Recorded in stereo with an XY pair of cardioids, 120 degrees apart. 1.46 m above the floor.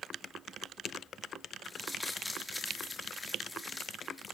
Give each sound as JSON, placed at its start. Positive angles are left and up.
{"t": 1.6, "sound": "crumpling", "azimuth_deg": 10, "distance_m": 3.5}